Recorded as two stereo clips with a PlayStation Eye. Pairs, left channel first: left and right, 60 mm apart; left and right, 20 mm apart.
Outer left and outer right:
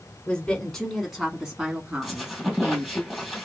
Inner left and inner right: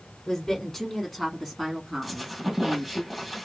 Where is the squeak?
5° right (ahead or behind), 1.5 m.